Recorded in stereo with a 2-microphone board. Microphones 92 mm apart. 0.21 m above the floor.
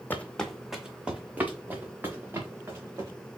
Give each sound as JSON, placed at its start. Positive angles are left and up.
{"t": 0.1, "sound": "footsteps", "side_deg": 20, "distance_m": 0.6}